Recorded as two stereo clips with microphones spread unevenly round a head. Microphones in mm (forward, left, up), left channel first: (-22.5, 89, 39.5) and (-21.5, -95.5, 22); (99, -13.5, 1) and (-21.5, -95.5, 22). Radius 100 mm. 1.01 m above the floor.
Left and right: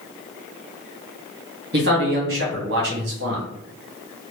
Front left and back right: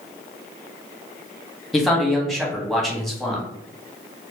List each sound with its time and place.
1.7 s a man speaking: 55° right, 1.5 m